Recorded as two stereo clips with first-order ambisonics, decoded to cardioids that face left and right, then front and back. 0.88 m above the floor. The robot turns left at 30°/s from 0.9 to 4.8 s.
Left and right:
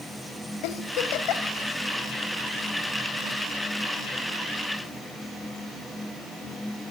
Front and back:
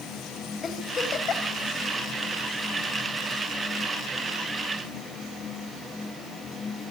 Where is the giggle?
70° left, 1.6 m; by 1.6 s 50° left, 1.6 m.